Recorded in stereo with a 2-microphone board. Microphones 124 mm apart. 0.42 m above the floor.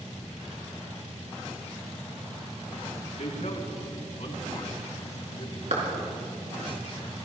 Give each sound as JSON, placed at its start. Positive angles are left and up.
{"t": 3.2, "sound": "a man speaking", "side_deg": 75, "distance_m": 4.0}
{"t": 5.7, "sound": "a clap", "side_deg": -70, "distance_m": 4.5}